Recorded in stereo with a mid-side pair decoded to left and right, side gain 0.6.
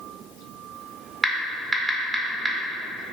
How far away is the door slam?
I don't hear a door slam.